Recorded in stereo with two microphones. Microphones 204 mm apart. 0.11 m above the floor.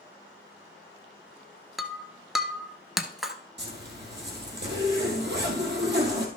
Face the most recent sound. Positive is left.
turn(degrees=-60)  # may be behind; listen again after turning